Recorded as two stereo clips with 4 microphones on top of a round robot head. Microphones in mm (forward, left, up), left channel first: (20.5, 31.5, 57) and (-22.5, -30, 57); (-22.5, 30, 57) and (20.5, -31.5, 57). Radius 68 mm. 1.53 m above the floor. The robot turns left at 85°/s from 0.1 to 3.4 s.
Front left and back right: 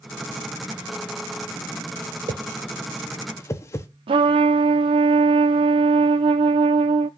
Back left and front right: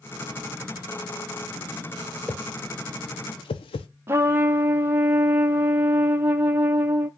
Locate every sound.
2.3 s a whoosh: 155° right, 0.7 m; by 3.9 s 110° left, 0.7 m
4.1 s a trumpet: 115° right, 0.5 m